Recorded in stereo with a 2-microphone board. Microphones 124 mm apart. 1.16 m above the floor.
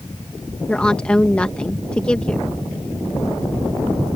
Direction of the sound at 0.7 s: 10° left (ahead or behind).